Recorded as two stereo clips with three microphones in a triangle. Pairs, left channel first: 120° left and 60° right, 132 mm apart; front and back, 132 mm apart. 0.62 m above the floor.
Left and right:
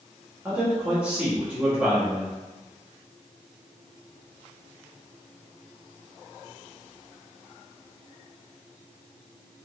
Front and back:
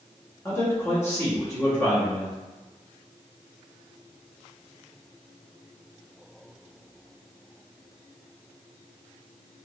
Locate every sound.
0.5 s a man speaking: straight ahead, 0.9 m